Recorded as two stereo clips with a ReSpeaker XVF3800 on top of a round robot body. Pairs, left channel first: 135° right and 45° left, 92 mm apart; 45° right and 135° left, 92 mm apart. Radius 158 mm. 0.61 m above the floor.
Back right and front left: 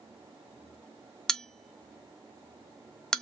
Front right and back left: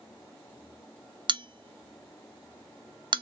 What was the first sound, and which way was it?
A bell, 140° left.